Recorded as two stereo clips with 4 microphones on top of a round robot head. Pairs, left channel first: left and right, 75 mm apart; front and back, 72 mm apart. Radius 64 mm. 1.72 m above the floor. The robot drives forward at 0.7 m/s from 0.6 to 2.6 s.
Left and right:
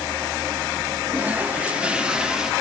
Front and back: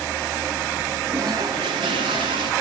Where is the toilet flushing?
140° right, 0.8 m; by 2.5 s 170° right, 1.5 m.